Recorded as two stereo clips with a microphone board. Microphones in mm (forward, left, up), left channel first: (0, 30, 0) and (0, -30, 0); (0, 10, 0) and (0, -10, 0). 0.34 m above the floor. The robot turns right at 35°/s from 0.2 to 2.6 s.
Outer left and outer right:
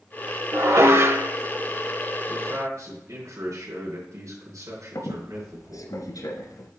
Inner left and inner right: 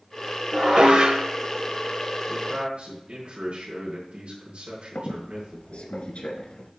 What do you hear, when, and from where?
0.5 s dishes clattering: 45° right (ahead or behind), 0.8 m; by 1.3 s 40° right (ahead or behind), 0.8 m
2.3 s a man speaking: 60° right (ahead or behind), 3 m; by 5.9 s 65° right (ahead or behind), 3 m
5.0 s a squeak: 75° left (ahead or behind), 1.4 m